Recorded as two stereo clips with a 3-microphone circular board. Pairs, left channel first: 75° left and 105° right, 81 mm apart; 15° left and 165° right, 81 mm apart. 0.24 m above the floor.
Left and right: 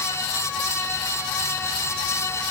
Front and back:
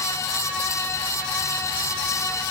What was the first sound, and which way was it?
Only background noise.